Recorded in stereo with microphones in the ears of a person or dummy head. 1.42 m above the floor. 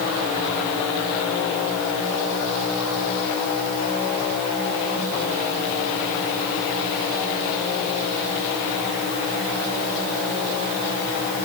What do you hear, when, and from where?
Only background noise.